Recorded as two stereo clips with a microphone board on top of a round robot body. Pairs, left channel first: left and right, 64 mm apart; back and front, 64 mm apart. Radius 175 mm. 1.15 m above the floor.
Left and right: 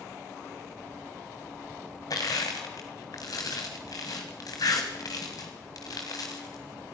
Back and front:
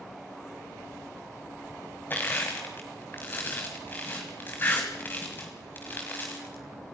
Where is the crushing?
120° left, 1.5 m.